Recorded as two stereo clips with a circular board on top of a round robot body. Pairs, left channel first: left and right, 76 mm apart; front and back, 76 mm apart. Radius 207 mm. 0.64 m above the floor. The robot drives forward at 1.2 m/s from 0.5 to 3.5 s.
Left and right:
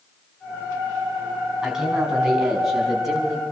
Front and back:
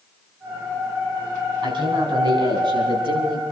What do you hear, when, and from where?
1.6 s a man speaking: 170° right, 6 m; by 3.4 s 175° right, 8.5 m